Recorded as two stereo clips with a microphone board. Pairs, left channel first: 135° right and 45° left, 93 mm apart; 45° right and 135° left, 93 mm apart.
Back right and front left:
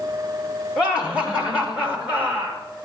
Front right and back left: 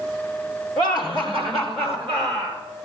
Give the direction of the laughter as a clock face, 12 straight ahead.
8 o'clock.